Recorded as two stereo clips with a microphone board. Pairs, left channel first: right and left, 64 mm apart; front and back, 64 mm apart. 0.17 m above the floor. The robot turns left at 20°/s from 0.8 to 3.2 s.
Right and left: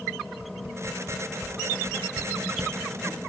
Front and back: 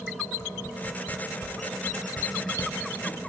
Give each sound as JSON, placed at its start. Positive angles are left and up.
{"t": 0.4, "sound": "a whoosh", "azimuth_deg": 50, "distance_m": 0.9}